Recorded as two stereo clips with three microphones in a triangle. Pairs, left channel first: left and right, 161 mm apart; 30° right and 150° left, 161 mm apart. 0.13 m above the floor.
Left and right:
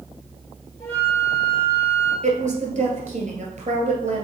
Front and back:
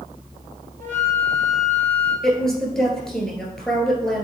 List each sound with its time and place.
0.8 s a flute: 160° left, 2.5 m
2.2 s a woman speaking: 115° right, 1.9 m